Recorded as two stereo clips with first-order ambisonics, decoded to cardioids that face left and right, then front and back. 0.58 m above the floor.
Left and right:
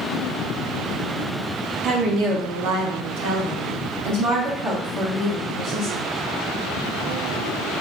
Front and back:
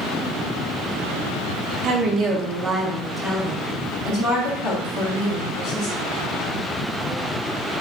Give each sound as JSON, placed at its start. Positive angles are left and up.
{"t": 1.8, "sound": "a woman speaking", "azimuth_deg": -135, "distance_m": 0.9}